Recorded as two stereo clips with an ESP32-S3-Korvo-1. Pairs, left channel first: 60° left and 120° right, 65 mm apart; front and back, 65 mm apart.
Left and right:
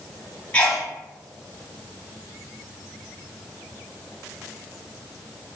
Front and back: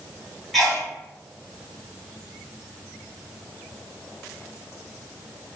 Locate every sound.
0.5 s a sneeze: 90° left, 1.1 m